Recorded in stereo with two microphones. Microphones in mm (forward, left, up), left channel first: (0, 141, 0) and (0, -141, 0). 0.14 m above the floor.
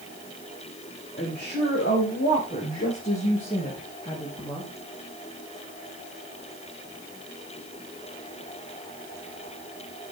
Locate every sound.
1.2 s a woman speaking: 40° left (ahead or behind), 6.5 m; by 4.7 s 10° left (ahead or behind), 4 m